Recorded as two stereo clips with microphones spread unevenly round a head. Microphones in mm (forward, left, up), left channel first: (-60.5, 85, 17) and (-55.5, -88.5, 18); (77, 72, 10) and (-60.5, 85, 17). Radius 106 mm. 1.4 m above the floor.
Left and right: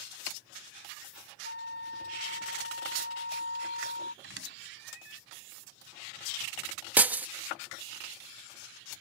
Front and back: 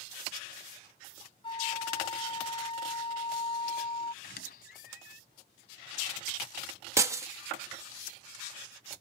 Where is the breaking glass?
155° right.